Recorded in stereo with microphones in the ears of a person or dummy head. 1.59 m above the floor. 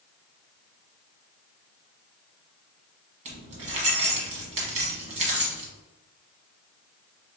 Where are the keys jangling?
40° right (ahead or behind), 1.1 m.